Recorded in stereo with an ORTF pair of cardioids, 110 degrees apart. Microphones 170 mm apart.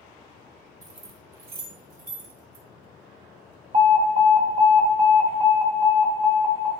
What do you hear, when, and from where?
0.8 s keys jangling: 20° right, 1.0 m; by 2.6 s 80° right, 2 m
3.7 s an alarm: 30° right, 1.4 m